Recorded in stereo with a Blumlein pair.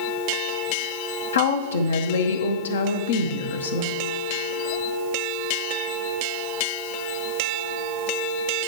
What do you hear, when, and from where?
1.3 s a woman speaking: 70° left, 0.8 m